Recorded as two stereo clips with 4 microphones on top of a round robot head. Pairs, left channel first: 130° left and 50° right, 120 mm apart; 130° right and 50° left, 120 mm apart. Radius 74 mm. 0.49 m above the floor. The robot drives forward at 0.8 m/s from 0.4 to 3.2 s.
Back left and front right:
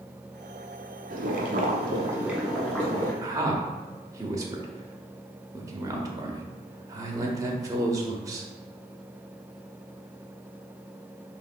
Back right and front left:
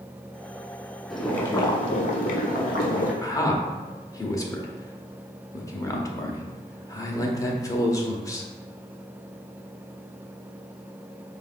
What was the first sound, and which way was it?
Boiling, 45° right.